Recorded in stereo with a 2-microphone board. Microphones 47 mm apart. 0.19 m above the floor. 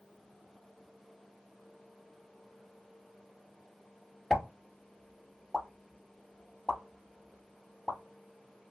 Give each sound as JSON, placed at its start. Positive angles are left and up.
{"t": 4.3, "sound": "a pop", "side_deg": 10, "distance_m": 0.7}